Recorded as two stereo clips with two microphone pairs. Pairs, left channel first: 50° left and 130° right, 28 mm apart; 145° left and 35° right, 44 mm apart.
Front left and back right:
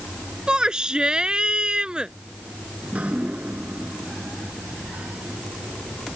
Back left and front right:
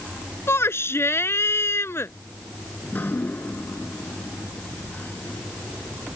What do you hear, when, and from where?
0.5 s a shout: 170° left
2.8 s dripping: 170° right